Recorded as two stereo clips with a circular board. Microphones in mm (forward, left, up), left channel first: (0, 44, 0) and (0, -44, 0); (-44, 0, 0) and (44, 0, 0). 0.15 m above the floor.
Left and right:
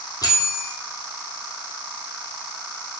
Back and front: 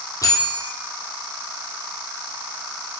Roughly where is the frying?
I don't hear frying.